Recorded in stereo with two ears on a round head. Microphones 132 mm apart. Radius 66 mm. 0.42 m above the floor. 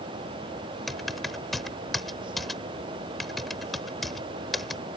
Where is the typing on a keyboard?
Centre (ahead or behind).